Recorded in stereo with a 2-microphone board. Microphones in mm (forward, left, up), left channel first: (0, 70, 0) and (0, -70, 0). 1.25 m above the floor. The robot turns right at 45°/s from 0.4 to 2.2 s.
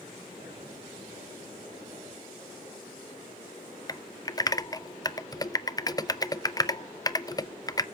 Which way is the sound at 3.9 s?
25° left (ahead or behind).